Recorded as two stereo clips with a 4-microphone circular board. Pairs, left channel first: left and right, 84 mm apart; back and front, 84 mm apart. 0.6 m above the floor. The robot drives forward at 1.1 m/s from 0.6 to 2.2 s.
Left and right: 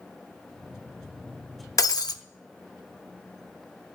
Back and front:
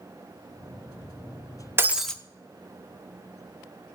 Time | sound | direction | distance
1.8 | breaking glass | 55° left | 0.6 m